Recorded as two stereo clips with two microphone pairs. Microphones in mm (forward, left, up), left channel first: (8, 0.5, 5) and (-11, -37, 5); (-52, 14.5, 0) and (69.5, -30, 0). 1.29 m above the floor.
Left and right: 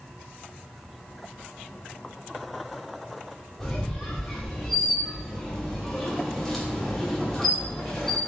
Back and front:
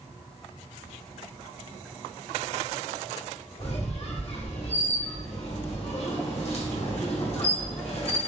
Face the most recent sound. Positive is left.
turn(degrees=145)